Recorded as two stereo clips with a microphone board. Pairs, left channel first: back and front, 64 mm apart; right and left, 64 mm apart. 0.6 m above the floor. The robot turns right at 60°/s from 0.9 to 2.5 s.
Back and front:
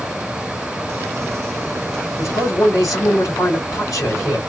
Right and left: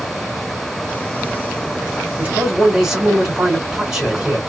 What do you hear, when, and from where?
2.2 s a man speaking: 145° left, 2.5 m; by 4.4 s 165° left, 2.5 m